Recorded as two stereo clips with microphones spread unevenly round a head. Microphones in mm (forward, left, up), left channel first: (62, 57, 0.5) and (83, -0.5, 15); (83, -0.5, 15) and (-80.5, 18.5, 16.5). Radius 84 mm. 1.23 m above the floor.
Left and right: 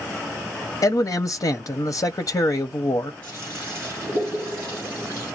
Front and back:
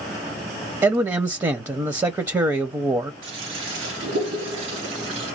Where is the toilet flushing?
170° right, 1.5 m.